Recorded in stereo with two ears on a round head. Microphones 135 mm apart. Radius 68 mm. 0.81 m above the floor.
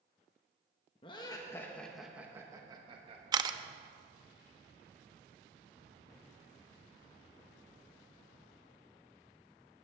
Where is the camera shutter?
25° right (ahead or behind), 0.6 m.